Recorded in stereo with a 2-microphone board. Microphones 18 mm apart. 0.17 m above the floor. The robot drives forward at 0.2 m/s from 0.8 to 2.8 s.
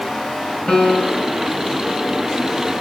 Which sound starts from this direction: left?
A piano, at 0.7 s.